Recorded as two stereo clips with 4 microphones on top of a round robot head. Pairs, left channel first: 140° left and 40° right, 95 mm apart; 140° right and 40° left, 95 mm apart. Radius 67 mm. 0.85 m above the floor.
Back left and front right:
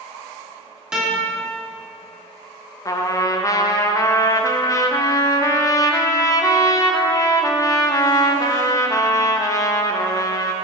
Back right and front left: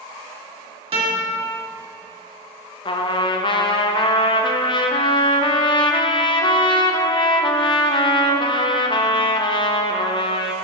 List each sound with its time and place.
0.9 s a guitar: 45° left, 1.9 m
2.9 s a trumpet: 170° right, 0.6 m